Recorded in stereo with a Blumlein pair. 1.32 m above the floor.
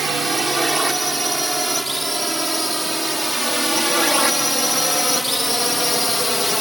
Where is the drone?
5° right; by 6.6 s 5° left.